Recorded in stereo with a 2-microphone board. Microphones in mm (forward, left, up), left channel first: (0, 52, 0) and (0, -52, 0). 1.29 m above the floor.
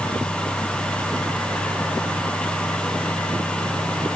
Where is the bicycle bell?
I don't hear a bicycle bell.